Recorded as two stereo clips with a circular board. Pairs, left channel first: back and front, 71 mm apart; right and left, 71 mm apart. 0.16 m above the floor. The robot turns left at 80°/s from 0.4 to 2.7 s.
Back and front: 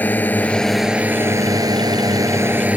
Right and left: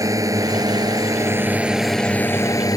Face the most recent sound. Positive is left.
turn(degrees=-65)